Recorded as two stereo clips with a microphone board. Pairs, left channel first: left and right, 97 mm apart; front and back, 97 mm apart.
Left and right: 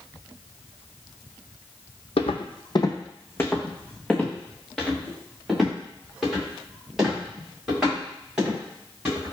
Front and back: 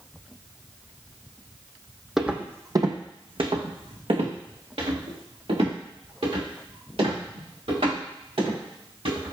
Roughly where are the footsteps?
Left.